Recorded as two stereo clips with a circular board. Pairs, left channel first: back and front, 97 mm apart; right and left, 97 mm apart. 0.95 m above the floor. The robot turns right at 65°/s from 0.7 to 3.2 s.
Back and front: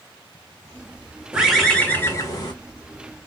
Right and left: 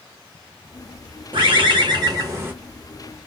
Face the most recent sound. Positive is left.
turn(degrees=-165)